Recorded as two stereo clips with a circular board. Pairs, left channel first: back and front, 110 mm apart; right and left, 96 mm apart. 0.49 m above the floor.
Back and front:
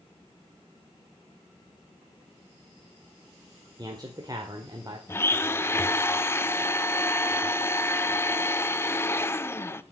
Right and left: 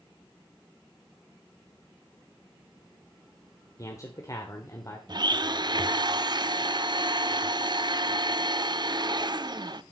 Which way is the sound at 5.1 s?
120° left.